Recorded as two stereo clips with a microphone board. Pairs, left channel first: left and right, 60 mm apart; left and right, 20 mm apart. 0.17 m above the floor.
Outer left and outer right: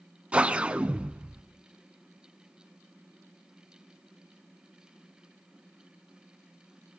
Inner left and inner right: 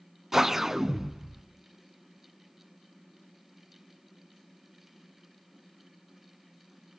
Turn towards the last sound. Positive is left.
turn(degrees=-20)  # may be behind; listen again after turning